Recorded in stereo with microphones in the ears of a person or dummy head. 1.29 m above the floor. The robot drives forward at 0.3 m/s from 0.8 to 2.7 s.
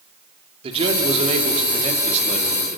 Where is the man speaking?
30° right (ahead or behind), 2.5 m; by 2.8 s 40° right (ahead or behind), 2 m.